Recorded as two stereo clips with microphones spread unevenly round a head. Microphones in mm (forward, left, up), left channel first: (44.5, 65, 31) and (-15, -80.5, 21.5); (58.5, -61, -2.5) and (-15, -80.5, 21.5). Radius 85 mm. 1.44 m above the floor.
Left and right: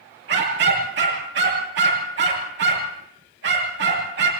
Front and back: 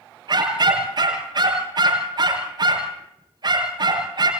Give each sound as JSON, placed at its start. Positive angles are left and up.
{"t": 0.3, "sound": "a dog barking", "azimuth_deg": -140, "distance_m": 8.0}